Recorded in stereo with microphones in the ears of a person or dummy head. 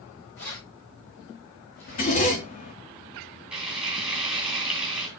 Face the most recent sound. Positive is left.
turn(degrees=0)  # may be behind; listen again after turning